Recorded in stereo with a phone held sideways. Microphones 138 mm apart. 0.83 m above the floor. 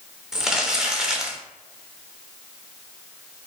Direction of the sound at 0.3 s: 5° right (ahead or behind).